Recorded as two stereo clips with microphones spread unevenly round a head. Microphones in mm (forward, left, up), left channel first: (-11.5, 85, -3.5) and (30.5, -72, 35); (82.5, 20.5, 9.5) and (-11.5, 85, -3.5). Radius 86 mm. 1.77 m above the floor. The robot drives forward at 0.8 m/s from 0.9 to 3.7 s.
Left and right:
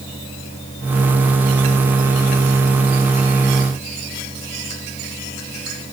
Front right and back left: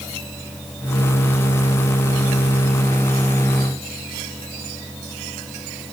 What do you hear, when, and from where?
Only background noise.